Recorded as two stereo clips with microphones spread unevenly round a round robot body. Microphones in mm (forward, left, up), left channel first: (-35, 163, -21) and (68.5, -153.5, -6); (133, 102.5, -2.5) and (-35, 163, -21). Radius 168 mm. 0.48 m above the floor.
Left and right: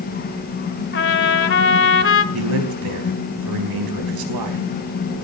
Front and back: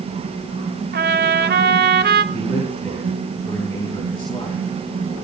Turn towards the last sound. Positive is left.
turn(degrees=-100)